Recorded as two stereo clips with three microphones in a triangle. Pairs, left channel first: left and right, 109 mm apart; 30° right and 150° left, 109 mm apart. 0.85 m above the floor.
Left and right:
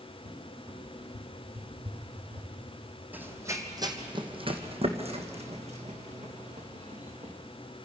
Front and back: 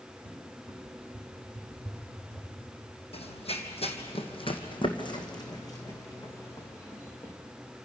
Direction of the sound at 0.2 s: 115° right.